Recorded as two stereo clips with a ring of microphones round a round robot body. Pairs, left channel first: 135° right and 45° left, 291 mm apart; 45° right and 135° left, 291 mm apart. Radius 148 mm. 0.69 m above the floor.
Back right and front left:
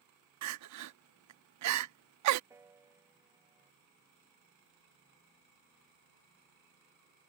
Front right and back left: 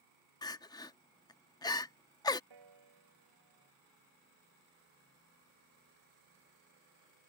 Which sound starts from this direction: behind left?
A piano, at 2.5 s.